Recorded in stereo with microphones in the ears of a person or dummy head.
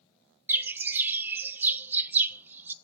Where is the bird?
15° right (ahead or behind), 0.7 m.